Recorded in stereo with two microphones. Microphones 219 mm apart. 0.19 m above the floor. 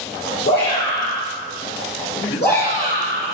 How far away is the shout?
About 3.5 m.